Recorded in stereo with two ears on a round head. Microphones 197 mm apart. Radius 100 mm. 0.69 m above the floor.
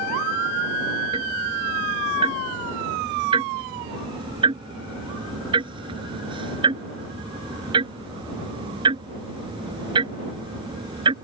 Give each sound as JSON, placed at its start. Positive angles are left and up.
{"t": 1.1, "sound": "ticking", "side_deg": -20}